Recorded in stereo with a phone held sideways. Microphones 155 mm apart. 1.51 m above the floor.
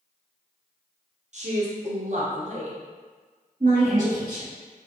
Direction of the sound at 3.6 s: 60° right (ahead or behind).